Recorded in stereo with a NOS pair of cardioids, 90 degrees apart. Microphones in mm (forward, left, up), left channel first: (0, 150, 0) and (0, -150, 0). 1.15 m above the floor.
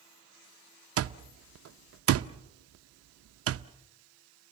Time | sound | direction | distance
1.0 | an alarm clock | 55° right | 0.7 m